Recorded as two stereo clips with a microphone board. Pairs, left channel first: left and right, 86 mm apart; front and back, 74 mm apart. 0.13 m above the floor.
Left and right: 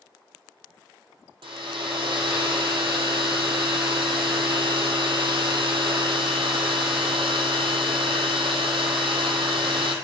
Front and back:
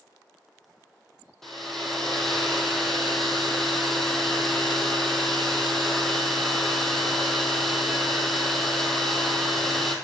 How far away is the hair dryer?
About 1.2 m.